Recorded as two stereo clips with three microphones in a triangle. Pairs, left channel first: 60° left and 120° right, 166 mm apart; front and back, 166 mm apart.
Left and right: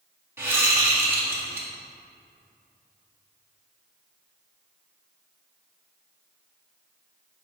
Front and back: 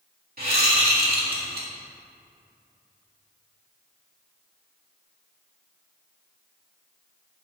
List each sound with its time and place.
0.4 s a whoosh: 165° left, 1.7 m